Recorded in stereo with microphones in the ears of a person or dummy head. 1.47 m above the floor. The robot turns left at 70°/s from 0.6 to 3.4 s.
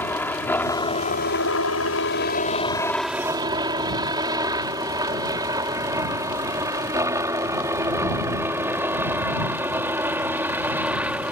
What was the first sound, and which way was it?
A helicopter, 10° left (ahead or behind).